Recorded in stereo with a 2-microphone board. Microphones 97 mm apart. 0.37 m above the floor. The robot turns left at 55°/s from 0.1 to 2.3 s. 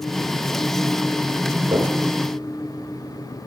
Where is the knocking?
35° right (ahead or behind), 5 m; by 1.9 s 50° right (ahead or behind), 5 m.